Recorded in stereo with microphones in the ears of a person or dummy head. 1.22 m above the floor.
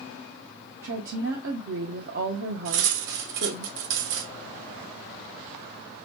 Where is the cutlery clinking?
65° right (ahead or behind), 0.9 m.